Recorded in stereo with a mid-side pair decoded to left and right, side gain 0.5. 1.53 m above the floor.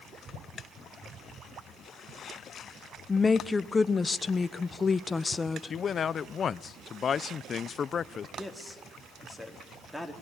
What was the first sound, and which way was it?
A woman speaking, 25° left.